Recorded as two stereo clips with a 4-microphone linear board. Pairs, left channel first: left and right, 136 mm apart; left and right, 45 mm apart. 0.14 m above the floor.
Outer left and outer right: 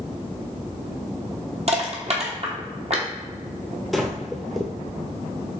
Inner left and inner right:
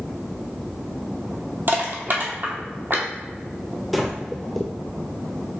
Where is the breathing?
Centre (ahead or behind), 0.8 m.